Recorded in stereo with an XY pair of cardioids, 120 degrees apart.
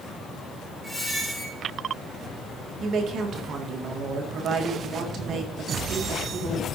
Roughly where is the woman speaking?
Ahead right.